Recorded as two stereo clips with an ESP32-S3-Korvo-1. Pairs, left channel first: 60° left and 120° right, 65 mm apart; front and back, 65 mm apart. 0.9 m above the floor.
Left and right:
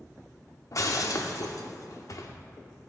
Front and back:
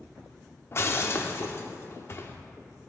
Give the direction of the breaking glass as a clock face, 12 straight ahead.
11 o'clock.